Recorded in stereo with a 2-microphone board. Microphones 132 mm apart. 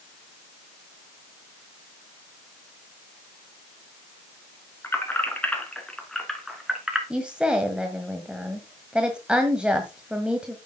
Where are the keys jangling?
20° left (ahead or behind), 2.5 m; by 7.0 s 5° right (ahead or behind), 2.5 m.